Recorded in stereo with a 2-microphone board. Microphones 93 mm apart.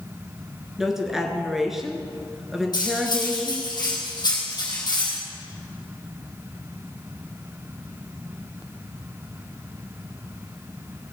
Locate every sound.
0.8 s a woman speaking: 5° right (ahead or behind), 1.7 m
2.7 s cutlery clinking: 45° left (ahead or behind), 3 m